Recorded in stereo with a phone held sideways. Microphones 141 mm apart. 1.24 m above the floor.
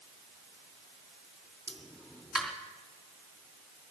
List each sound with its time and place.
1.7 s a pop: centre (ahead or behind), 3 m